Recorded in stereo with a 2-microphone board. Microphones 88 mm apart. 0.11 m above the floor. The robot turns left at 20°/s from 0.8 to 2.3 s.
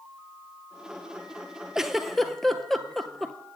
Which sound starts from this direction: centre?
A giggle, at 1.8 s.